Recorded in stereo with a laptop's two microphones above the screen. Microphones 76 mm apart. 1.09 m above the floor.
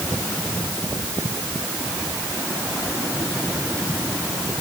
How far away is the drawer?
No drawer in this recording.